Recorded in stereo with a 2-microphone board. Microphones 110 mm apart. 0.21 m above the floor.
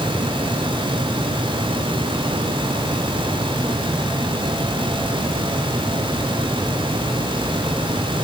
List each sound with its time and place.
Only background noise.